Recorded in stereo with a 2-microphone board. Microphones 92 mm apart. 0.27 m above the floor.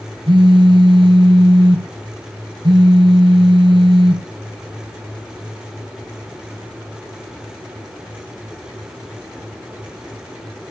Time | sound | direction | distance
0.3 | a phone buzzing | 70° right (ahead or behind) | 1.2 m